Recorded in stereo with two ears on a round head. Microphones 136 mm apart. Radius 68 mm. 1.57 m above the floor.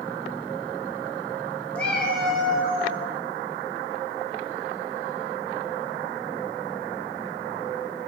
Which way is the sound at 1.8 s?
10° left (ahead or behind).